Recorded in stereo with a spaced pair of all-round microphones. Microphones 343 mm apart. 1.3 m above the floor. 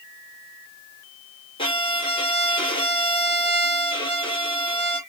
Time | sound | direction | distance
1.6 | a violin | 15° left (ahead or behind) | 1.0 m